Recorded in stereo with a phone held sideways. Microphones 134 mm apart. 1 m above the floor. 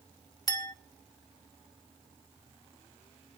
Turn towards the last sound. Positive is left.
turn(degrees=30)  # may be behind; listen again after turning